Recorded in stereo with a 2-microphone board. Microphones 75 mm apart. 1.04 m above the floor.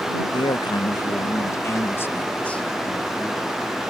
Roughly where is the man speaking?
Left.